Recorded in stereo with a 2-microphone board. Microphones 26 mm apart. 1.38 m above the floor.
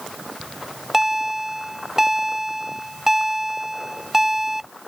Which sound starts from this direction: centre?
A bell, at 0.4 s.